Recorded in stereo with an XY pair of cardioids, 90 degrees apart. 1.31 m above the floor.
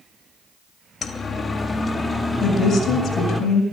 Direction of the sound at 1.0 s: 50° left.